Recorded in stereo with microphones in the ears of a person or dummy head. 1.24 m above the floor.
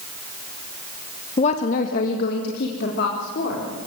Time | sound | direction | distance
1.4 | a woman speaking | 40° left (ahead or behind) | 1.1 m